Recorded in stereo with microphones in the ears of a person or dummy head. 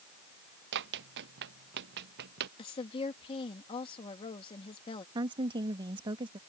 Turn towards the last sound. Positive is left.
turn(degrees=-25)  # may be behind; listen again after turning